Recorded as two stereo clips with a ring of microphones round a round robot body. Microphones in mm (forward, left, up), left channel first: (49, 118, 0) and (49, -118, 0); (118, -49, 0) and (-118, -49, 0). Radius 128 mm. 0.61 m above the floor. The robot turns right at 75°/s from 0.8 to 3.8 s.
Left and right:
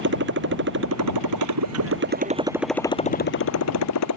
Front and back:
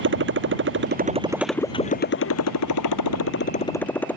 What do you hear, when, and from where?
0.0 s a motorcycle: 140° right; by 4.2 s 85° left